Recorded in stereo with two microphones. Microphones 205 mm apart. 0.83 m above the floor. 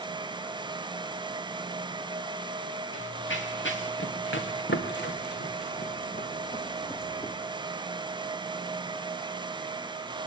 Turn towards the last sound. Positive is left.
turn(degrees=20)  # may be behind; listen again after turning